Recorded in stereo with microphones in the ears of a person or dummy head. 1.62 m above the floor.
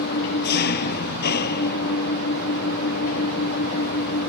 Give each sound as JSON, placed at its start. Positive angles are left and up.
{"t": 0.0, "sound": "an engine running", "side_deg": 50}